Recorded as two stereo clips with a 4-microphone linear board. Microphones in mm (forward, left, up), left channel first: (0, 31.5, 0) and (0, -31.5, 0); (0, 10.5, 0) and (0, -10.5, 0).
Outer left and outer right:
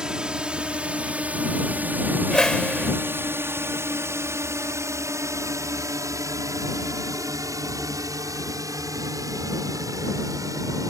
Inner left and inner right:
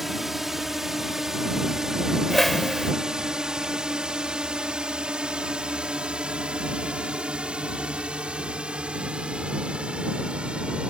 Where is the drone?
15° right (ahead or behind); by 10.9 s 65° right (ahead or behind).